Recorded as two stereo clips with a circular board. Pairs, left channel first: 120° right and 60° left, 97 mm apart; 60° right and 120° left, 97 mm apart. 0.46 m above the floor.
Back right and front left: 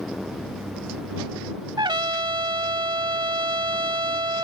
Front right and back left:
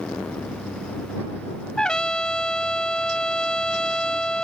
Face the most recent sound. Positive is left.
turn(degrees=20)